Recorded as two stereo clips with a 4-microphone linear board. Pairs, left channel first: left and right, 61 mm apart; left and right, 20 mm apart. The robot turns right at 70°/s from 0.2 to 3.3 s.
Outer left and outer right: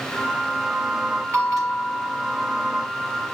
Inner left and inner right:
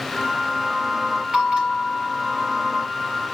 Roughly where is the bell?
Behind right.